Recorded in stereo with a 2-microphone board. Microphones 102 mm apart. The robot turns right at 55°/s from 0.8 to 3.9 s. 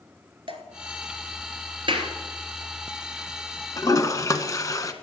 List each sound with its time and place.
0.5 s dripping: 55° right (ahead or behind), 1.3 m
1.9 s a clap: 55° right (ahead or behind), 2 m; by 2.1 s 60° right (ahead or behind), 2 m
3.8 s a toilet flushing: 35° left (ahead or behind), 0.9 m